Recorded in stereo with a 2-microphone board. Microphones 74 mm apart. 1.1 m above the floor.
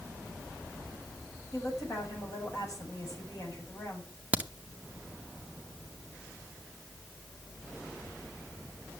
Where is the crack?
20° right (ahead or behind), 0.8 m.